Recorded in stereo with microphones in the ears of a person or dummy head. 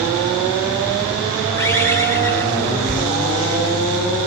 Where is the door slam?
5° right (ahead or behind), 2.5 m.